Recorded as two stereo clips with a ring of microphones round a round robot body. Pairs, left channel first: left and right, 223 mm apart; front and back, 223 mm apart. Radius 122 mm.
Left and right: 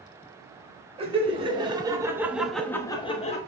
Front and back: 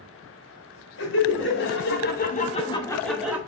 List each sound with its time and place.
1.0 s laughter: 30° right, 2.5 m; by 3.4 s 105° left, 1.2 m